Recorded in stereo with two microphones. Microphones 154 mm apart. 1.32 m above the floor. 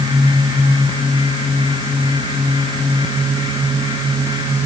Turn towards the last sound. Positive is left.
No sound to turn to.